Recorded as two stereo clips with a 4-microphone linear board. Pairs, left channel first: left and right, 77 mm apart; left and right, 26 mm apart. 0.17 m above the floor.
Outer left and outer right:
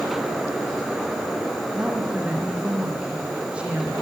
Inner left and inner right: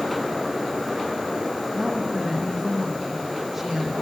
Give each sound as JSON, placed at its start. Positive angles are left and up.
{"t": 1.7, "sound": "a woman speaking", "side_deg": -5, "distance_m": 6.0}